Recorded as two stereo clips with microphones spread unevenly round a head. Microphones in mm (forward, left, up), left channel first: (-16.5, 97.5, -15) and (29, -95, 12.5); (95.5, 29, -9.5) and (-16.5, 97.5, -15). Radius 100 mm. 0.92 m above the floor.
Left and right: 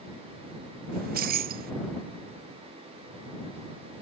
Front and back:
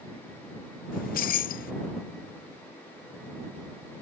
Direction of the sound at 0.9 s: 30° right.